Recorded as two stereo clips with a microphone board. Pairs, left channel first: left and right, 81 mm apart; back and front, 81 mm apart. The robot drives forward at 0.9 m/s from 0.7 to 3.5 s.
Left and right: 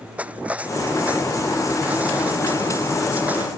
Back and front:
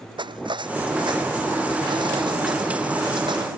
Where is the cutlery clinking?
15° right; by 3.5 s 20° right.